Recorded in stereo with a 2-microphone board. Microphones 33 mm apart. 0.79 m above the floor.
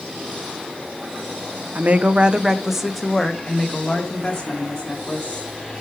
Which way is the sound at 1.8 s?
50° right (ahead or behind).